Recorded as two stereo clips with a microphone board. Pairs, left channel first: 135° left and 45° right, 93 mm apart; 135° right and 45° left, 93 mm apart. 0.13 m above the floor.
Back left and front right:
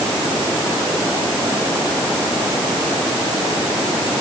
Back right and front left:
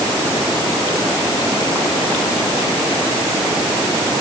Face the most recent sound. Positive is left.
No sound to turn to.